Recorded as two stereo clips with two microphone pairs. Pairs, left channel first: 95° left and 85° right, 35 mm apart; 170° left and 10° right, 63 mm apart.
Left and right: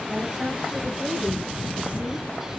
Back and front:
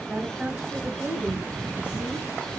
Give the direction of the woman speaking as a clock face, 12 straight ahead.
2 o'clock.